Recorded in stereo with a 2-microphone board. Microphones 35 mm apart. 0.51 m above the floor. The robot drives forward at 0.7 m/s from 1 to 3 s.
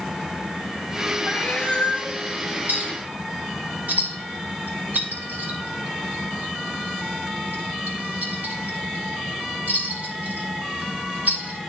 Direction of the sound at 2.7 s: 60° right (ahead or behind).